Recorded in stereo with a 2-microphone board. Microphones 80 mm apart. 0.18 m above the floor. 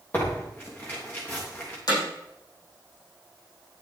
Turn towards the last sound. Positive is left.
turn(degrees=55)  # may be behind; listen again after turning